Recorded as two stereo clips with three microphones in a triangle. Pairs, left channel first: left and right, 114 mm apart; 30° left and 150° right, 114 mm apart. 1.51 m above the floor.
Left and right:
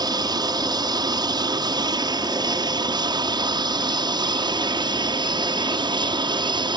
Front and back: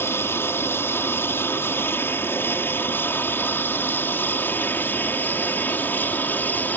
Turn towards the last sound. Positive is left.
turn(degrees=-45)